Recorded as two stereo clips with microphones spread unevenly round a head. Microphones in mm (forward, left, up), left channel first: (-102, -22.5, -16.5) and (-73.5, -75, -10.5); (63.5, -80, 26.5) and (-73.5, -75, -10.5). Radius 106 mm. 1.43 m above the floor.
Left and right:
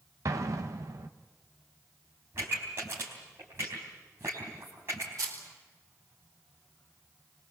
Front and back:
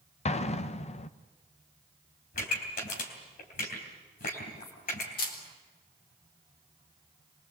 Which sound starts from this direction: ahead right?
An explosion, at 0.2 s.